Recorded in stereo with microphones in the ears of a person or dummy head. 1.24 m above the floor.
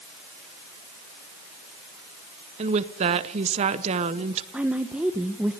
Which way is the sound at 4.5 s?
5° right (ahead or behind).